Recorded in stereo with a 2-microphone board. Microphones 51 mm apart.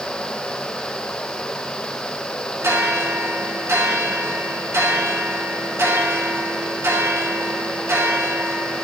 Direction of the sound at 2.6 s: 55° right (ahead or behind).